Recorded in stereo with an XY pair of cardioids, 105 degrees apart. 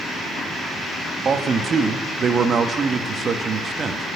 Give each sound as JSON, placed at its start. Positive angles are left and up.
{"t": 1.2, "sound": "a man speaking", "azimuth_deg": -45, "distance_m": 1.3}